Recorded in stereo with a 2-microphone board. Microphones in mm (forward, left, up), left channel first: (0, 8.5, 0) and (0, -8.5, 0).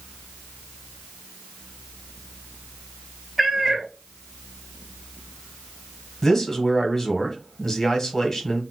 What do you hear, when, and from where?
3.4 s a cat meowing: 10° right (ahead or behind), 0.8 m
6.2 s a man speaking: 30° left (ahead or behind), 1.2 m